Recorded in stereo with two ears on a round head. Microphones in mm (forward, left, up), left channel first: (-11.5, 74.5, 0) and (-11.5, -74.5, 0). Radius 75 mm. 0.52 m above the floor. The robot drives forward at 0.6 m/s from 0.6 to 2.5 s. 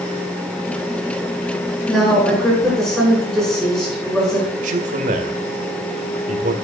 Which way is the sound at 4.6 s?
45° right (ahead or behind).